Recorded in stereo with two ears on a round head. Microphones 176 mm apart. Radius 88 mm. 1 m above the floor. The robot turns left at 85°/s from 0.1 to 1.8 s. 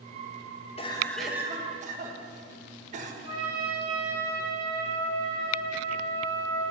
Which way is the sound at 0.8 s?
40° left.